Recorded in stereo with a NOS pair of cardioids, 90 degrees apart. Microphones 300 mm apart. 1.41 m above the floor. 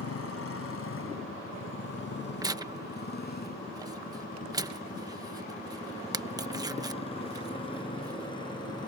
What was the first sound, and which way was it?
A motorcycle, 50° left.